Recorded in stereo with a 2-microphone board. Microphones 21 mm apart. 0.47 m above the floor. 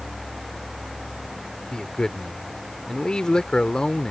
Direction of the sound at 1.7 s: 45° left (ahead or behind).